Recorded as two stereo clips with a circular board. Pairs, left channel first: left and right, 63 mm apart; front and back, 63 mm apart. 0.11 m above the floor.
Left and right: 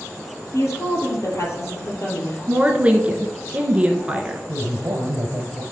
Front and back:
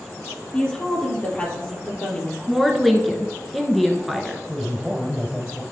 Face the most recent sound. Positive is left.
turn(degrees=-100)